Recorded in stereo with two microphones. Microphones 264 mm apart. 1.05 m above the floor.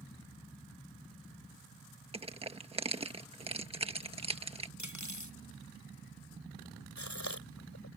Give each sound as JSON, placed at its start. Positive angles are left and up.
{"t": 2.1, "sound": "crushing", "side_deg": -20}
{"t": 4.8, "sound": "cutlery clinking", "side_deg": 85}
{"t": 7.0, "sound": "a gasp", "side_deg": 75}